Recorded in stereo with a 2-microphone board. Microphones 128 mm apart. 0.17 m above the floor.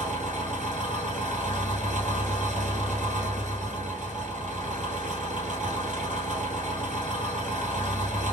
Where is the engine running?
75° right (ahead or behind), 1.5 m.